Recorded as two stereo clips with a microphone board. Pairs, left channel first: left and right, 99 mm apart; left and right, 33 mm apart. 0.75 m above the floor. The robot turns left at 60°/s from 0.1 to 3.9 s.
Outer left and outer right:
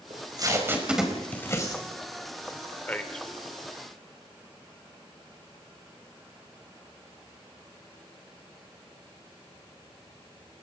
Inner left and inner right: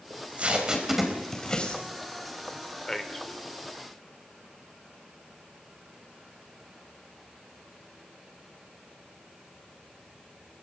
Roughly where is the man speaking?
Centre.